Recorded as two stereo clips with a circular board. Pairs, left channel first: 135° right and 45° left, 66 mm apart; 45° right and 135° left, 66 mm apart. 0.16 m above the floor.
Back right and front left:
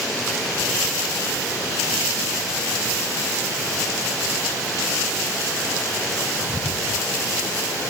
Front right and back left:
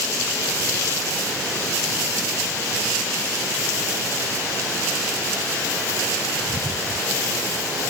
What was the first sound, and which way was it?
Only background noise.